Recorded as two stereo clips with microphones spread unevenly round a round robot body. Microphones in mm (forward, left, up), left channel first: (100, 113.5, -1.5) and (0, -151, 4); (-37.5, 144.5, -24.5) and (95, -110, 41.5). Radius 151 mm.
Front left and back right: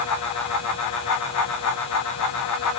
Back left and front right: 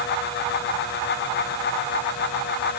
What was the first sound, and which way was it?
Only background noise.